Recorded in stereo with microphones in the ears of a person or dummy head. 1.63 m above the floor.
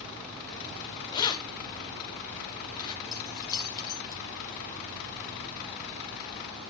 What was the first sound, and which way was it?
Keys jangling, 20° left (ahead or behind).